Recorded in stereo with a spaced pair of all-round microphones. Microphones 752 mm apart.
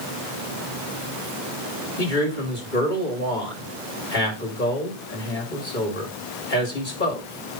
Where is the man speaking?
85° left, 4 m.